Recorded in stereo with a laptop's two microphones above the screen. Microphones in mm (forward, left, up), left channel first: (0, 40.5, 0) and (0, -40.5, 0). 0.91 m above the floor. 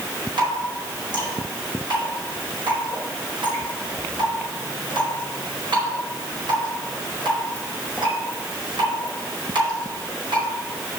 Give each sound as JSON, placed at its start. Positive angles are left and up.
{"t": 0.4, "sound": "dripping", "side_deg": -80, "distance_m": 4.5}